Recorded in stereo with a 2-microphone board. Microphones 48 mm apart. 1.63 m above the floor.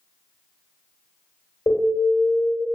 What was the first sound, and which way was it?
An alarm, 65° left (ahead or behind).